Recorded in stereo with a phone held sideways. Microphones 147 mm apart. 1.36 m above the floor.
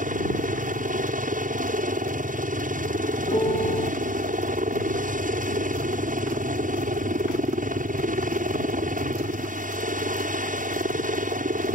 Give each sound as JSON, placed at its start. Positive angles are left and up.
{"t": 0.0, "sound": "a helicopter", "side_deg": -65}
{"t": 3.3, "sound": "a piano", "side_deg": 35}